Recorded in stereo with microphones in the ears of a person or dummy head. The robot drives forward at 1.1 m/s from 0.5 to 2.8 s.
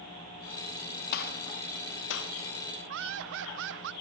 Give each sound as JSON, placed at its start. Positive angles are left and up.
{"t": 1.1, "sound": "a gunshot", "side_deg": 60, "distance_m": 2.5}
{"t": 2.9, "sound": "laughter", "side_deg": -65, "distance_m": 0.9}